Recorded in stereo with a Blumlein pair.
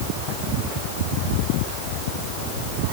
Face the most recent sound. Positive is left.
No sound to turn to.